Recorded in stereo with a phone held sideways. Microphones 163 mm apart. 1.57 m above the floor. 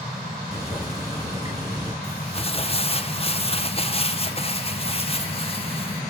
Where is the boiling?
20° right (ahead or behind), 5.5 m.